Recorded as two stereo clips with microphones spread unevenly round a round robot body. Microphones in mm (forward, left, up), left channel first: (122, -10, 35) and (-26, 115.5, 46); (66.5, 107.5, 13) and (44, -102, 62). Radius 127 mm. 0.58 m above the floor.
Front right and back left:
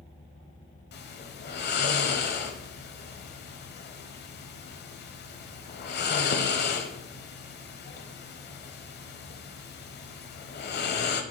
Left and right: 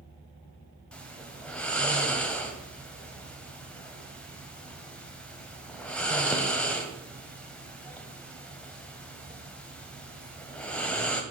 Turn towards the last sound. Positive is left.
turn(degrees=-5)